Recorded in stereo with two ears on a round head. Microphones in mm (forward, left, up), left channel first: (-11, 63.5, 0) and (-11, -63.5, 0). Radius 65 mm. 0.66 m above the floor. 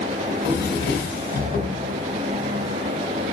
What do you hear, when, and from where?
0.3 s a drawer: 85° left, 1.3 m